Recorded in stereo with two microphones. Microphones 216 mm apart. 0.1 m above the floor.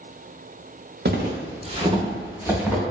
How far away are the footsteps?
About 0.8 m.